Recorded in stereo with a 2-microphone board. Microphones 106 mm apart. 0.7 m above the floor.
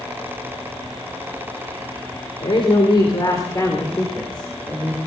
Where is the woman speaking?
60° left (ahead or behind), 3 m; by 5.0 s centre (ahead or behind), 3.5 m.